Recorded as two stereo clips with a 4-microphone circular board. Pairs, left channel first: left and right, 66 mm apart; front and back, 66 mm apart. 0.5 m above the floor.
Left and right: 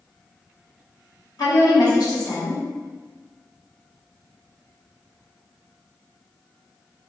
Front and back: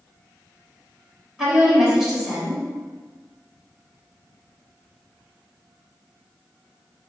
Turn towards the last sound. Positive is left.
turn(degrees=100)